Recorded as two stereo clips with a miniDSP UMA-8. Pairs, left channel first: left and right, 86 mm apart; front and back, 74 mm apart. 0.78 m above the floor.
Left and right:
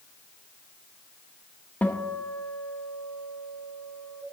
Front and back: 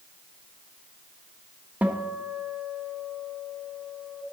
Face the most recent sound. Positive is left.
turn(degrees=140)